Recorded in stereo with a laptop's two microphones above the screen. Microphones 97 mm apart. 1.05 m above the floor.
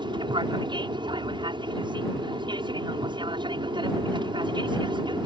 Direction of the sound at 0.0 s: 55° right (ahead or behind).